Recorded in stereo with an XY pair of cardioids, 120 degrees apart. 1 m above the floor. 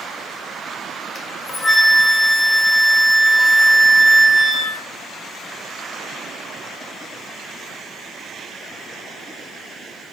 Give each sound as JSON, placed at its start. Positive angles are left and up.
{"t": 1.1, "sound": "a flute", "azimuth_deg": 35, "distance_m": 0.6}